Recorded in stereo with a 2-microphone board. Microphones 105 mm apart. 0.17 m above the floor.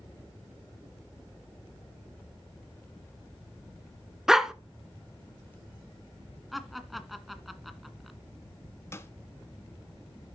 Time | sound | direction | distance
4.3 | a dog barking | 5° right (ahead or behind) | 0.8 m
6.5 | laughter | centre (ahead or behind) | 1.6 m
8.9 | a snare drum | 25° left (ahead or behind) | 1.2 m